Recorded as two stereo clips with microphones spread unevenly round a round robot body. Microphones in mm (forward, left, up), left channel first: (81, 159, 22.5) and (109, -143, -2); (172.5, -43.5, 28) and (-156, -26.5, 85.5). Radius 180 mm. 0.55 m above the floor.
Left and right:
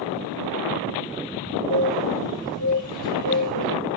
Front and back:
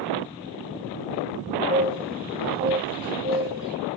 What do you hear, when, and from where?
1.7 s a bird: 105° right, 1.7 m